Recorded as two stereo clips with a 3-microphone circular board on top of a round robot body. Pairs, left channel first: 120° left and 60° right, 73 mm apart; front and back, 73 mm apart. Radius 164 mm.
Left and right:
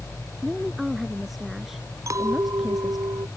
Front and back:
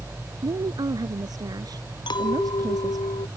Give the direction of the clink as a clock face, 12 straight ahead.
12 o'clock.